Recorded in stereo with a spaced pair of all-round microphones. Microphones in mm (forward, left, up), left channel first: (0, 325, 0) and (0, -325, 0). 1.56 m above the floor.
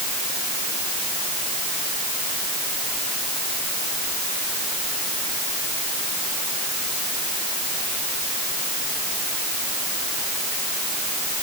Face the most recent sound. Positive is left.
No sound to turn to.